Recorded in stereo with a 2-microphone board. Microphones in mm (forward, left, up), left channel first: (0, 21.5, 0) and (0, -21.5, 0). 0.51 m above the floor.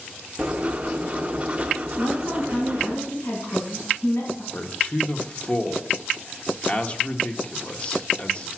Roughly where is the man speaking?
Left.